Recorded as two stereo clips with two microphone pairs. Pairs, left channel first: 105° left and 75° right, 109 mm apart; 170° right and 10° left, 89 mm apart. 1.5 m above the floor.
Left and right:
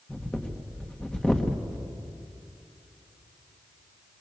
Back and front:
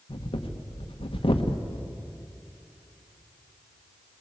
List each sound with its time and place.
0.1 s breathing: 175° right, 1.5 m